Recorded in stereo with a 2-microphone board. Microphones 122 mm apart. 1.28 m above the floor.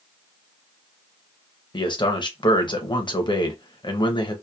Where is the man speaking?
45° left (ahead or behind), 0.8 m.